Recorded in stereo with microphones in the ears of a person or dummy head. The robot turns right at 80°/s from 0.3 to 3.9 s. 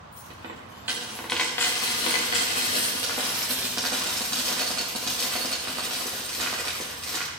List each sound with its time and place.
0.1 s a dropped coin: 20° right (ahead or behind), 0.9 m; by 7.3 s 10° right (ahead or behind), 0.9 m